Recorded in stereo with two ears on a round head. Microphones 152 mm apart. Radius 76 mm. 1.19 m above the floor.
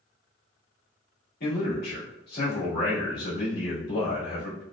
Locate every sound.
1.4 s a man speaking: 60° left (ahead or behind), 1.7 m